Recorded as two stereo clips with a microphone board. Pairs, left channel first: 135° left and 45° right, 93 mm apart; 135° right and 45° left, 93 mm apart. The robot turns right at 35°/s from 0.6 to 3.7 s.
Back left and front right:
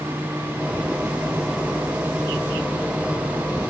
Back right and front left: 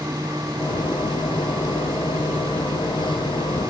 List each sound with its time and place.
Only background noise.